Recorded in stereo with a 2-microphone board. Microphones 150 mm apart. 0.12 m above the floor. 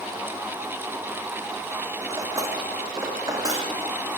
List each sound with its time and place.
2.1 s cutlery clinking: 20° right (ahead or behind), 4.5 m